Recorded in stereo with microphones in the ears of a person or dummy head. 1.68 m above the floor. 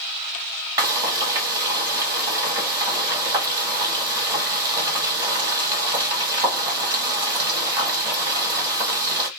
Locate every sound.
0.8 s frying: 20° right (ahead or behind), 0.9 m